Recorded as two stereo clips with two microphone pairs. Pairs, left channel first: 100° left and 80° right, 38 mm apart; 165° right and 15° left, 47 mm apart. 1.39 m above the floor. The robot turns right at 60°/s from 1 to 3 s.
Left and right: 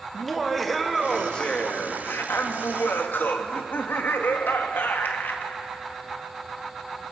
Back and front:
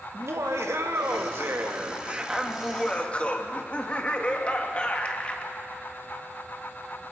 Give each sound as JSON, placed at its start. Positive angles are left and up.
{"t": 0.1, "sound": "laughter", "azimuth_deg": 15, "distance_m": 1.7}